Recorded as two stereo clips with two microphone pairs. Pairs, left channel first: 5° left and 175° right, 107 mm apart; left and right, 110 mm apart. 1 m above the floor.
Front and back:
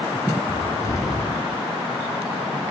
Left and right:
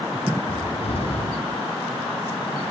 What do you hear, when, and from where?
0.5 s a cupboard door: 65° left, 9 m